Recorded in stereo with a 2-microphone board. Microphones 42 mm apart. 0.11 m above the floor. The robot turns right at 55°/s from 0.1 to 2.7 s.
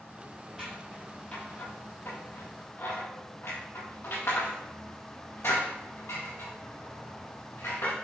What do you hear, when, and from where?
0.6 s scissors: 10° right (ahead or behind), 5.5 m; by 7.9 s 75° left (ahead or behind), 5.5 m